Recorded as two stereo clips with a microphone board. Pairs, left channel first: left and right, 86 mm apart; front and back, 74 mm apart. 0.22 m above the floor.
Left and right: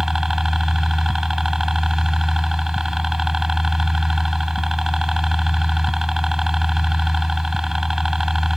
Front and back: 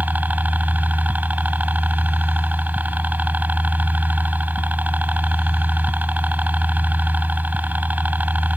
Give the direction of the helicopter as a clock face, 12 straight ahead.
6 o'clock.